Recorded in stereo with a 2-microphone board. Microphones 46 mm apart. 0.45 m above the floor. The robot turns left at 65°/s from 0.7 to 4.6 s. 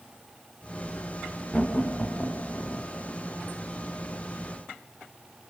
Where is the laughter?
30° left (ahead or behind), 1.1 m; by 2.9 s 35° left (ahead or behind), 1.1 m.